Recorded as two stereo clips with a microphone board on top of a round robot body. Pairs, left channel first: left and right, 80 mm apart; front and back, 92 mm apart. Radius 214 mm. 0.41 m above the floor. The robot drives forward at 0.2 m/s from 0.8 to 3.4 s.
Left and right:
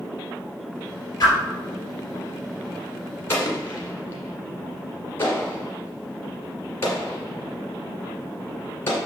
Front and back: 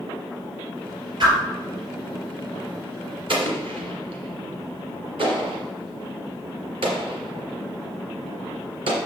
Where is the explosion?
155° left, 1.6 m.